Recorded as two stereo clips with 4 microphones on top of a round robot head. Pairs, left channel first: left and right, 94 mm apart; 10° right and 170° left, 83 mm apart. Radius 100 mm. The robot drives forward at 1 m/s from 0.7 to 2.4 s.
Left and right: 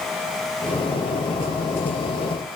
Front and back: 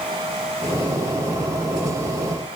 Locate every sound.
Only background noise.